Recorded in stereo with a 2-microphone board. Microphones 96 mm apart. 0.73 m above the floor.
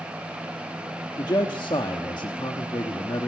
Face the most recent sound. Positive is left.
turn(degrees=50)  # may be behind; listen again after turning